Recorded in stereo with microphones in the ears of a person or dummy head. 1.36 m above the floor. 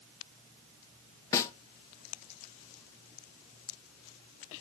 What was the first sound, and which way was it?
A snare drum, 15° left (ahead or behind).